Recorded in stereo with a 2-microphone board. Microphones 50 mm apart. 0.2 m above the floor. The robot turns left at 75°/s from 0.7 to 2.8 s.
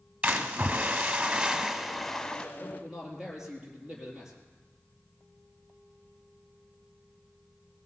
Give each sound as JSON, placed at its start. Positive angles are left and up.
{"t": 0.2, "sound": "a splash", "side_deg": -20, "distance_m": 1.4}
{"t": 2.6, "sound": "a man speaking", "side_deg": 5, "distance_m": 4.0}